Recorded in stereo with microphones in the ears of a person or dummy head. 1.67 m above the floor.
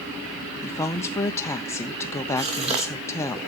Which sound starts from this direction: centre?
A woman speaking, at 0.6 s.